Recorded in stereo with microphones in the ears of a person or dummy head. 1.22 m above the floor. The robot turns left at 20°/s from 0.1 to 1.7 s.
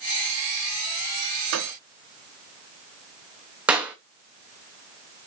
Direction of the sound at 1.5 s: 75° right (ahead or behind).